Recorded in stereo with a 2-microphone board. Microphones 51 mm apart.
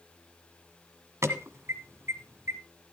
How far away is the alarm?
About 1.5 m.